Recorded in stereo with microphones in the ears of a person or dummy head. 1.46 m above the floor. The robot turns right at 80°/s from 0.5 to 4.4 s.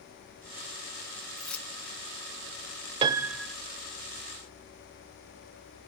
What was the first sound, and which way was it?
Keys jangling, 5° right (ahead or behind).